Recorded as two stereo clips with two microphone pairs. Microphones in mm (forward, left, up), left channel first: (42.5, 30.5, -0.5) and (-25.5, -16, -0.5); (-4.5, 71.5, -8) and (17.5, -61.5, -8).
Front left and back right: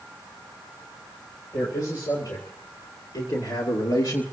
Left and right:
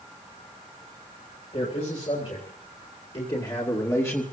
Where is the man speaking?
65° left, 4 m; by 4.2 s 25° left, 1.7 m.